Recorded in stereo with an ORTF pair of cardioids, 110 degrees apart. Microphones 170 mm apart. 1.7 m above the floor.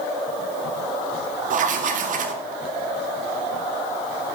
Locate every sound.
1.5 s writing: 50° right, 1.9 m